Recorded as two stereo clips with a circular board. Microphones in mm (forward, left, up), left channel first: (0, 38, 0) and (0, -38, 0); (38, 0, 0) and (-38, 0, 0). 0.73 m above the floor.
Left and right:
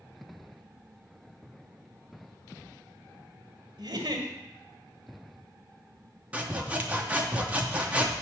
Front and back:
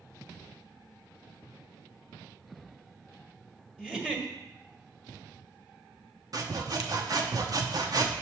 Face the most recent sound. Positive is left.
turn(degrees=-160)